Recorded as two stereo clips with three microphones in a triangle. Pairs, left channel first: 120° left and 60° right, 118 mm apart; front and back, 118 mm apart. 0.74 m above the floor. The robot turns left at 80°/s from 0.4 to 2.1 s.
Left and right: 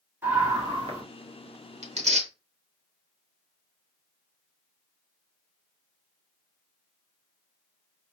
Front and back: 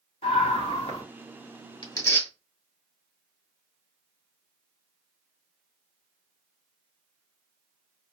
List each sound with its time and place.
0.2 s a scream: 10° left, 1.8 m; by 1.0 s 40° right, 1.8 m
1.8 s tearing paper: 45° right, 0.9 m; by 2.3 s 70° right, 0.9 m